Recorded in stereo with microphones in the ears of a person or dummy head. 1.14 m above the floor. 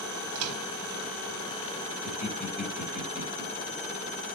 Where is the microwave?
80° right, 1.5 m.